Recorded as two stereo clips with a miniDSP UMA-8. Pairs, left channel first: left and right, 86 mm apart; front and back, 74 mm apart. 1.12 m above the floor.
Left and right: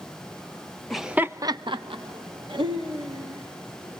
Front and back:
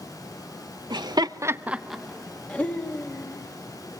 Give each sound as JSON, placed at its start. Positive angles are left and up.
{"t": 0.9, "sound": "laughter", "azimuth_deg": 175, "distance_m": 1.0}